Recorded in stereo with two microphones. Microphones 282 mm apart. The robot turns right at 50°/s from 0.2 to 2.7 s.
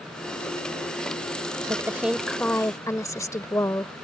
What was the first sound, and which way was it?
A woman speaking, 10° right (ahead or behind).